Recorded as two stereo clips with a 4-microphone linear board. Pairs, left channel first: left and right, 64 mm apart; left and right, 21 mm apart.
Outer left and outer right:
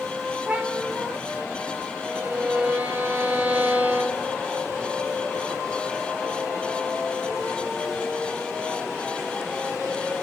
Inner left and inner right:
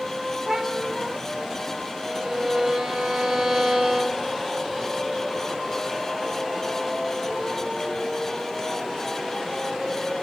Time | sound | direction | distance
0.5 | a cat meowing | 15° right (ahead or behind) | 1.6 m
2.0 | a violin | 25° right (ahead or behind) | 1.5 m